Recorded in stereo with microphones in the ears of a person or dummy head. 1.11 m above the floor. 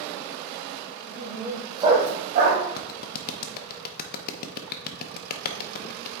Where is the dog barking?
Centre (ahead or behind), 2 m; by 2.6 s 65° right (ahead or behind), 1.6 m.